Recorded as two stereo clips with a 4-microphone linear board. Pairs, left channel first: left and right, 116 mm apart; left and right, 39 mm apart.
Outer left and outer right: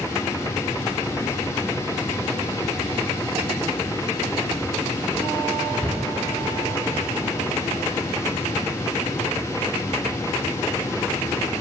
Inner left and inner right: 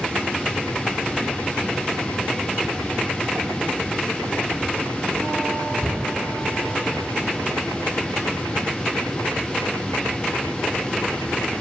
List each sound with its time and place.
5.8 s a cupboard door: centre (ahead or behind), 0.8 m